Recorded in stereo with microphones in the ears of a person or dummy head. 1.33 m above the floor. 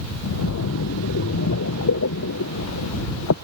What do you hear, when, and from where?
0.2 s a splash: 75° left (ahead or behind)